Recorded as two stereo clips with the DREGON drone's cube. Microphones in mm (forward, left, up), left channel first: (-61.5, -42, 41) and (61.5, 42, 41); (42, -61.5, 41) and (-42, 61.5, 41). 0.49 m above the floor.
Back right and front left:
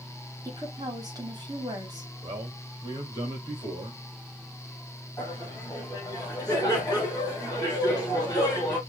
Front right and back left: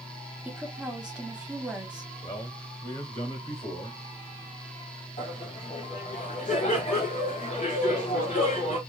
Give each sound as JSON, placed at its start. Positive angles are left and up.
{"t": 0.5, "sound": "a woman speaking", "azimuth_deg": 50, "distance_m": 1.3}
{"t": 2.2, "sound": "a man speaking", "azimuth_deg": -25, "distance_m": 1.9}
{"t": 5.2, "sound": "laughter", "azimuth_deg": -70, "distance_m": 1.8}